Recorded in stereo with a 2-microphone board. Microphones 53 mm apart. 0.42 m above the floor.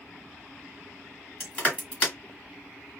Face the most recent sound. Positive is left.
turn(degrees=20)  # may be behind; listen again after turning